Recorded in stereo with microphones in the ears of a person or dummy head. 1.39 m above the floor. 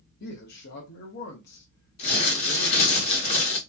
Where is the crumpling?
35° left (ahead or behind), 1.5 m.